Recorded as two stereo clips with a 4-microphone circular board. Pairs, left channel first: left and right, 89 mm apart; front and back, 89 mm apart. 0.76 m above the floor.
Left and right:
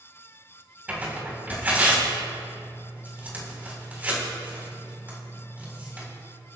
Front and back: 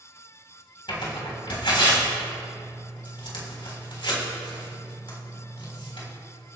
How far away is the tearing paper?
About 3.5 m.